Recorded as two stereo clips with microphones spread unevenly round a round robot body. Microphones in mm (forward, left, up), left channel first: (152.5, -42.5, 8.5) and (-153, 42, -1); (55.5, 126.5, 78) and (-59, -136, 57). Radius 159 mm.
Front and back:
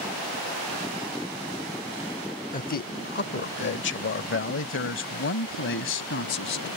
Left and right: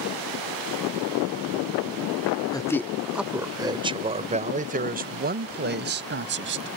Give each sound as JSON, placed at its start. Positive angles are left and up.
{"t": 2.5, "sound": "a man speaking", "azimuth_deg": 0}